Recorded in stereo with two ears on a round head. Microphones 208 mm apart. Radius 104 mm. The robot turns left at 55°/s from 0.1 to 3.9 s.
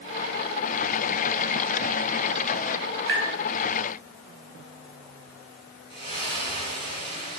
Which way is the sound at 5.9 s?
25° left (ahead or behind).